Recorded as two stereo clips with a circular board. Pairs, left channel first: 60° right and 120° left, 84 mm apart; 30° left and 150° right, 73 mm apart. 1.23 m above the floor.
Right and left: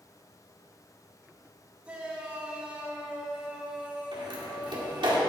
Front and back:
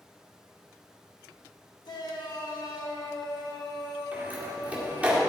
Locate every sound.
1.9 s a shout: 45° left, 2 m
4.1 s a door slam: 140° left, 2.0 m